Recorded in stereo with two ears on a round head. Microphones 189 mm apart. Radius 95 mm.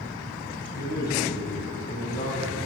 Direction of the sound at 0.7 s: 45° left (ahead or behind).